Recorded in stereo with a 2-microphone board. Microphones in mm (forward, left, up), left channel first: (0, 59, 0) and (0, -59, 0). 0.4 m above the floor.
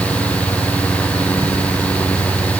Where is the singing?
I don't hear singing.